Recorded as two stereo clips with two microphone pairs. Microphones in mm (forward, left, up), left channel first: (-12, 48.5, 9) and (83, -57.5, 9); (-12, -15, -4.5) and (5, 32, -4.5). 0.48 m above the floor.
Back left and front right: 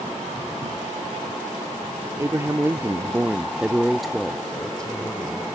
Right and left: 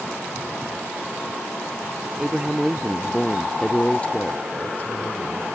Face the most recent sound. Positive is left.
turn(degrees=-150)